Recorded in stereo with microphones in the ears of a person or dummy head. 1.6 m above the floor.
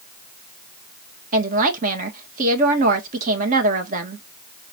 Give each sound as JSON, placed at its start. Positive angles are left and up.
{"t": 1.3, "sound": "a woman speaking", "side_deg": -50, "distance_m": 1.7}